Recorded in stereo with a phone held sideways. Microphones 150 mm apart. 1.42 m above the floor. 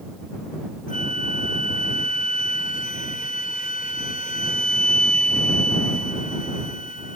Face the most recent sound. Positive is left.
turn(degrees=60)  # may be behind; listen again after turning